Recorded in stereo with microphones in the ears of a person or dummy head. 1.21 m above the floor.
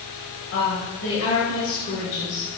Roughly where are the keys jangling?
I don't hear keys jangling.